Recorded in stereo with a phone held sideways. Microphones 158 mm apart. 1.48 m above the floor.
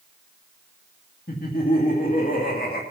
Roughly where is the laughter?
Left.